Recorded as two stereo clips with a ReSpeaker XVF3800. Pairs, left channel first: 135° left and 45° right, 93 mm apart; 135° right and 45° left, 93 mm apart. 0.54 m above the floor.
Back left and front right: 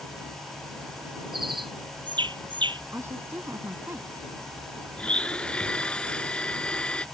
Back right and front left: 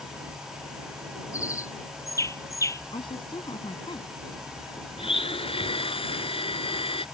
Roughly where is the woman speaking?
Right.